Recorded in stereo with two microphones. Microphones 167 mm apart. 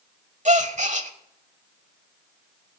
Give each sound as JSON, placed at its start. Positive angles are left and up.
{"t": 0.5, "sound": "a gasp", "side_deg": -45, "distance_m": 1.0}